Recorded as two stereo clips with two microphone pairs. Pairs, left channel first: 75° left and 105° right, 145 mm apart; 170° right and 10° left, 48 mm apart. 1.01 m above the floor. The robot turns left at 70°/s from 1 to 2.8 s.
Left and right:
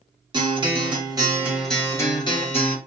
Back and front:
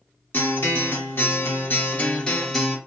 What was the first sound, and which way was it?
A guitar, 150° right.